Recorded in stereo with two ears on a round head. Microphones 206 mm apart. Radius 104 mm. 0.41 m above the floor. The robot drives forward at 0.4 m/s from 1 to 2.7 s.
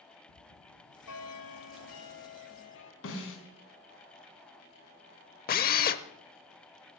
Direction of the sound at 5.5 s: 40° left (ahead or behind).